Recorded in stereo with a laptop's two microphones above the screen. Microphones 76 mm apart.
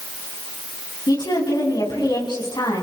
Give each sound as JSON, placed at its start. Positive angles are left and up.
{"t": 1.1, "sound": "a woman speaking", "side_deg": 75, "distance_m": 8.0}